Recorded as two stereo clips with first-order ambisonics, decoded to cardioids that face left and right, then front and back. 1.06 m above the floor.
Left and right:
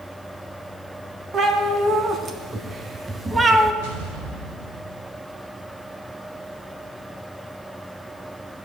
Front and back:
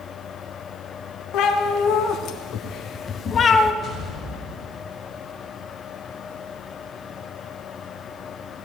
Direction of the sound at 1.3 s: 30° right.